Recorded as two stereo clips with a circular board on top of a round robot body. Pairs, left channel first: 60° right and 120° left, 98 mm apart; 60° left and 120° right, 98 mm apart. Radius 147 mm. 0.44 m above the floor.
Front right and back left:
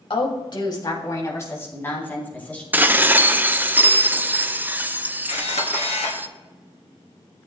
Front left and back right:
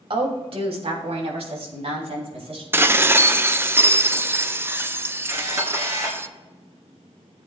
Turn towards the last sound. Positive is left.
turn(degrees=-60)